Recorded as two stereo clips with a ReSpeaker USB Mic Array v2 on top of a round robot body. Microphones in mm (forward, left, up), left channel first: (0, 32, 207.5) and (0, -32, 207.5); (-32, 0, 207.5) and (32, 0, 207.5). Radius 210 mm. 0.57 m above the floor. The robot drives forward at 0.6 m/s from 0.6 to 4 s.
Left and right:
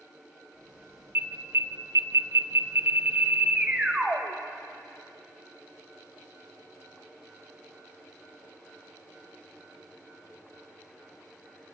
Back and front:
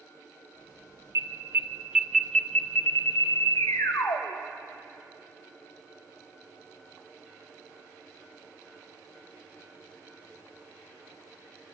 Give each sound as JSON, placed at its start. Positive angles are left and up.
{"t": 1.1, "sound": "an alarm", "azimuth_deg": -35, "distance_m": 0.8}